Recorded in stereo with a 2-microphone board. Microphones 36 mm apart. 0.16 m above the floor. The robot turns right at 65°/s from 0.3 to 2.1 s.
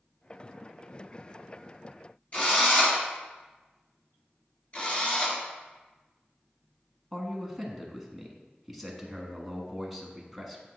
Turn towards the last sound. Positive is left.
turn(degrees=0)  # may be behind; listen again after turning